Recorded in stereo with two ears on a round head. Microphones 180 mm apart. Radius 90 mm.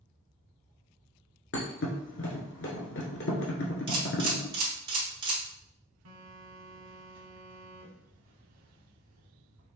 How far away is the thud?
About 1.1 m.